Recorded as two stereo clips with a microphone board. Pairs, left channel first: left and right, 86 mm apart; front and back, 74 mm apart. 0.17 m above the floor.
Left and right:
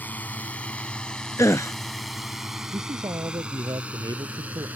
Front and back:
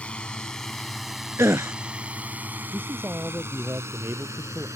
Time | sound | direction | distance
0.0 | a drone | 55° left | ?
1.4 | a gasp | 140° left | ?
2.7 | a man speaking | 125° right | ?